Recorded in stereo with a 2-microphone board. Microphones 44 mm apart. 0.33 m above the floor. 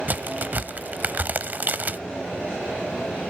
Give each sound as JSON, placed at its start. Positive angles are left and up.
{"t": 0.1, "sound": "a crack", "side_deg": -40, "distance_m": 0.9}